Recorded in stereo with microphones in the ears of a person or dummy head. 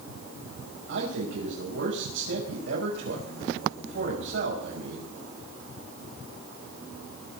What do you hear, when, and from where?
0.9 s a man speaking: 70° right (ahead or behind), 6.5 m